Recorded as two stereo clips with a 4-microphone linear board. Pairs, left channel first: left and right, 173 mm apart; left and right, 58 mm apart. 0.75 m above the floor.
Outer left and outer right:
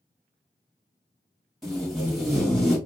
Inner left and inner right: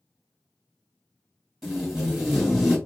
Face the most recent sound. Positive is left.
turn(degrees=0)  # may be behind; listen again after turning